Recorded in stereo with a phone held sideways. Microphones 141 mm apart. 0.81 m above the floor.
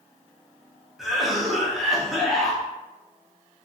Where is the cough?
Centre (ahead or behind), 0.8 m.